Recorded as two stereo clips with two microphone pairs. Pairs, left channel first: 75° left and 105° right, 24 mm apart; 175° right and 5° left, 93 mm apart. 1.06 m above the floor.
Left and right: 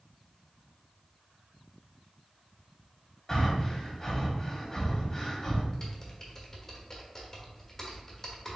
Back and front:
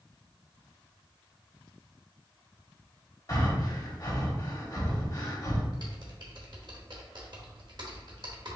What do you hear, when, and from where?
3.3 s breathing: 145° left, 1.2 m
5.7 s typing on a keyboard: 5° left, 1.1 m